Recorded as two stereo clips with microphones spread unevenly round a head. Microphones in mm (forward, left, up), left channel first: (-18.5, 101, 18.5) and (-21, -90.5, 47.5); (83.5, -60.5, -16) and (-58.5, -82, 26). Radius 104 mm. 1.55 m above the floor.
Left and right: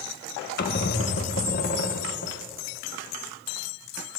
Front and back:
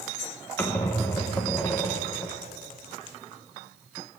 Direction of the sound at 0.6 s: 105° left.